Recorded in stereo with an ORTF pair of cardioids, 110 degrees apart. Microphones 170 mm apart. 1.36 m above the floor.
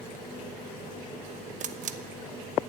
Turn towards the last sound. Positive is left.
turn(degrees=-50)